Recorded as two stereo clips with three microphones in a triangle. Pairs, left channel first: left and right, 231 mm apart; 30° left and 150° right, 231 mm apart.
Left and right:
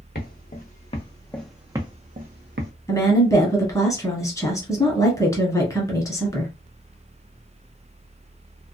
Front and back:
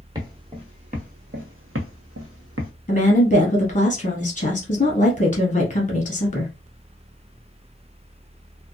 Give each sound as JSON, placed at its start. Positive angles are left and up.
{"t": 0.1, "sound": "footsteps", "azimuth_deg": 140, "distance_m": 1.1}
{"t": 2.9, "sound": "a woman speaking", "azimuth_deg": 25, "distance_m": 1.2}